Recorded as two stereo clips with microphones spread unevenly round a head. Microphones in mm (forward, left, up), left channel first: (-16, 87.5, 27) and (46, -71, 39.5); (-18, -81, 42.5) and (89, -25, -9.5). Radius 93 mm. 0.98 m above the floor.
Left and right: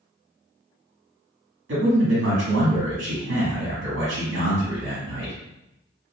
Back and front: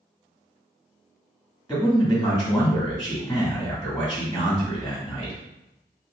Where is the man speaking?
70° right, 1.9 m.